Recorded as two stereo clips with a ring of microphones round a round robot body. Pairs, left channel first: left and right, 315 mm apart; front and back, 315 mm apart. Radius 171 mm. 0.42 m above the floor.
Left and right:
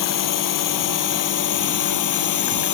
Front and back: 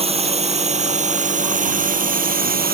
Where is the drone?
110° left; by 2.7 s 120° left.